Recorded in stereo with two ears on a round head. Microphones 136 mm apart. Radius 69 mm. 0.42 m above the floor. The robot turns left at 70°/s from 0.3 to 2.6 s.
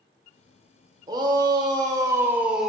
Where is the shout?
25° right (ahead or behind), 0.9 m; by 2.7 s 5° right (ahead or behind), 0.9 m.